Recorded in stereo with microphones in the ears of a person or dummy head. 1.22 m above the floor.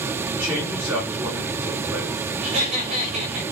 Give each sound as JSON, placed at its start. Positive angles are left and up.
{"t": 0.3, "sound": "a man speaking", "side_deg": -15, "distance_m": 4.0}
{"t": 2.4, "sound": "laughter", "side_deg": -40, "distance_m": 4.5}